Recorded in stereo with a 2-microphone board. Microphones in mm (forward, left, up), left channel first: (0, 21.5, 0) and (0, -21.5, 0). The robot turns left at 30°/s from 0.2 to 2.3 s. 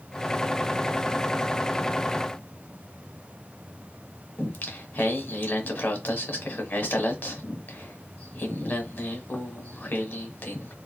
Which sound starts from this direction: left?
Singing, at 4.4 s.